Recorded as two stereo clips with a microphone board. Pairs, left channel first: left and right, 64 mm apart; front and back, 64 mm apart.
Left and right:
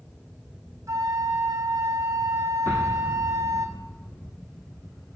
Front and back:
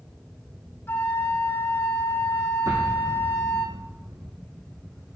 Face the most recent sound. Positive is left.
turn(degrees=150)